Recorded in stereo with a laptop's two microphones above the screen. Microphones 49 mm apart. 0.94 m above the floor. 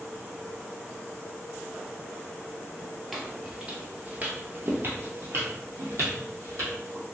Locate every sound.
3.1 s footsteps: centre (ahead or behind), 1.1 m; by 7.0 s 55° right (ahead or behind), 2.5 m